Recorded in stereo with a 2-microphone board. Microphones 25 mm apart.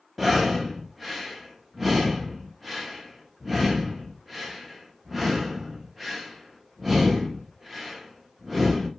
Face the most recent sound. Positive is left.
turn(degrees=-10)  # may be behind; listen again after turning